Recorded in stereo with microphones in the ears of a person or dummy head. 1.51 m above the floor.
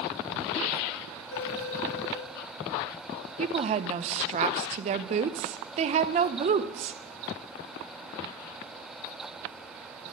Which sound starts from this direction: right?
A woman speaking, at 3.4 s.